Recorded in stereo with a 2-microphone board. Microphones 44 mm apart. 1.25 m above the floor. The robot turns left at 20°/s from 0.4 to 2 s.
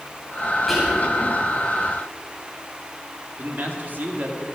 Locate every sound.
0.7 s whispering: centre (ahead or behind), 7 m; by 1.1 s 5° right (ahead or behind), 7 m
3.4 s a man speaking: 45° right (ahead or behind), 2.5 m